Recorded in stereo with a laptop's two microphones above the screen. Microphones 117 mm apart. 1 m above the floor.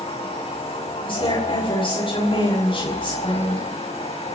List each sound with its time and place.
0.0 s a machine running: 65° left (ahead or behind), 7 m
1.1 s a woman speaking: 50° left (ahead or behind), 6 m